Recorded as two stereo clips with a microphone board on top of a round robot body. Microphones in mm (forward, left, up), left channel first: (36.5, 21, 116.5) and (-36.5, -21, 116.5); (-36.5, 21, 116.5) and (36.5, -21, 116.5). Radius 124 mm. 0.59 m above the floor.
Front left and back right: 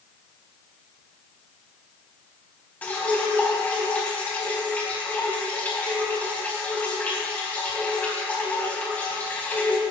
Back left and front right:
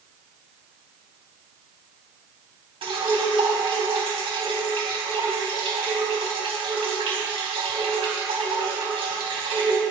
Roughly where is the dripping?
Ahead right.